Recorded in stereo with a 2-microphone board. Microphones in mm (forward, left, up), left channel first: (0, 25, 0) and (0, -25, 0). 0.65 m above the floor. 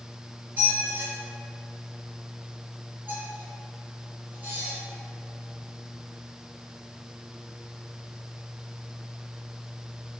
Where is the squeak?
40° right (ahead or behind), 1.3 m.